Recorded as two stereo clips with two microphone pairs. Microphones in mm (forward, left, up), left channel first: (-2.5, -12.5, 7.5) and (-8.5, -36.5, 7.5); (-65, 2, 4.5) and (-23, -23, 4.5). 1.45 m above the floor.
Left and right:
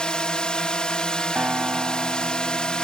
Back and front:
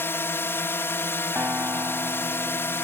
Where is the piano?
75° right.